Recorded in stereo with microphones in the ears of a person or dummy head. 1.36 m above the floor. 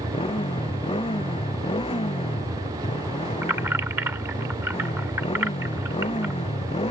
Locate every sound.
0.0 s a motorcycle: 20° left (ahead or behind)
3.4 s keys jangling: 5° right (ahead or behind)